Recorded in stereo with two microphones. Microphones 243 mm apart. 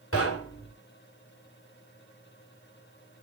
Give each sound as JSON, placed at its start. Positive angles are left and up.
{"t": 0.1, "sound": "knocking", "side_deg": 70, "distance_m": 3.0}